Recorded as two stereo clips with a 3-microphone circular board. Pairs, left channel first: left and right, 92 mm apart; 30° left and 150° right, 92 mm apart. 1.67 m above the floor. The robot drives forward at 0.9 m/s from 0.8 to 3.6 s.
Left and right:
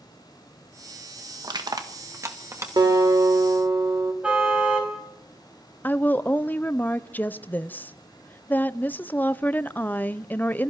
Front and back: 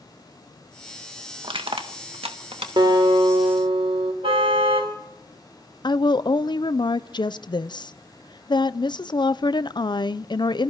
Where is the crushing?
130° right, 1.5 m; by 2.7 s 150° right, 2.5 m.